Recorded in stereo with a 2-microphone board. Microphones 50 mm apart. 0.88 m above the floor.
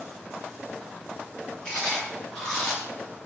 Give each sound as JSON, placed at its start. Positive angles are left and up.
{"t": 1.6, "sound": "chewing", "side_deg": 10, "distance_m": 0.9}